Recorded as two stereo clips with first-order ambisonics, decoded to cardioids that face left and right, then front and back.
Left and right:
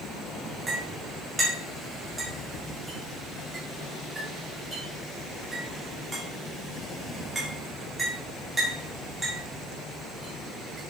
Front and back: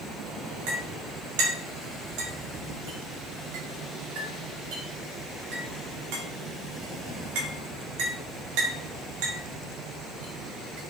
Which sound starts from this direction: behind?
A clink, at 0.7 s.